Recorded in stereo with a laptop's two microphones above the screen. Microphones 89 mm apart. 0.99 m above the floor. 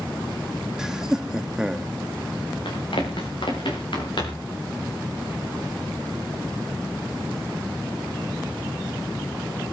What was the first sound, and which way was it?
Laughter, 5° right (ahead or behind).